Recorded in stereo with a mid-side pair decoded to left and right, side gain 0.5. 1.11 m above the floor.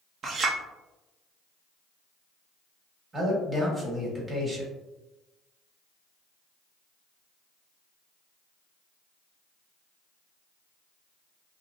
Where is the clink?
50° right, 0.7 m.